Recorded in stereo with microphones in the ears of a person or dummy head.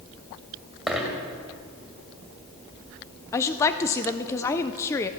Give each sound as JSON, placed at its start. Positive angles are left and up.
{"t": 0.9, "sound": "a dropped coin", "side_deg": -5, "distance_m": 2.0}
{"t": 3.3, "sound": "a woman speaking", "side_deg": 15, "distance_m": 0.5}